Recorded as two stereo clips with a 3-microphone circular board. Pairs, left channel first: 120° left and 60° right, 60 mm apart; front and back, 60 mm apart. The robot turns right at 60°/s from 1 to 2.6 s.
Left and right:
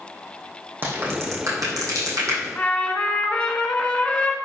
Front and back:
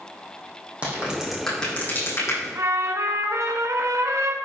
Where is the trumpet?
175° right, 1.5 m; by 4.3 s 170° right, 1.5 m.